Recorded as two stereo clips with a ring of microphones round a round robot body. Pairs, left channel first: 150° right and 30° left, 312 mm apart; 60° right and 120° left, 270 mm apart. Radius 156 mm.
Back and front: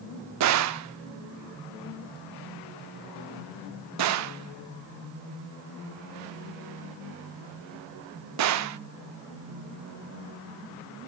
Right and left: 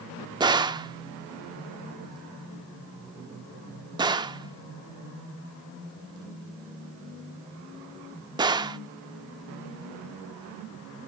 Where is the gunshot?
50° left, 0.6 m.